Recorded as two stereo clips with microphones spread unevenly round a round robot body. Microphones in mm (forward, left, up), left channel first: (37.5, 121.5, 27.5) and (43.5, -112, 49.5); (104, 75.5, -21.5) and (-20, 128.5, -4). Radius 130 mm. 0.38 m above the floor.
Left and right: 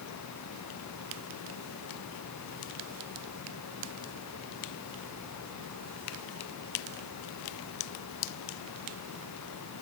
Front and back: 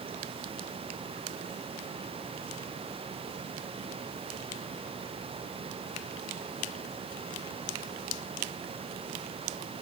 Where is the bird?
I don't hear a bird.